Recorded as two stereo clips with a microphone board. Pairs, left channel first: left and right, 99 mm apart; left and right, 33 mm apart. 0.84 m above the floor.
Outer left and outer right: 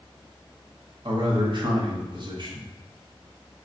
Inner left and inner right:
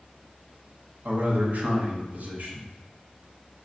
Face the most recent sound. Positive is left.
turn(degrees=-55)  # may be behind; listen again after turning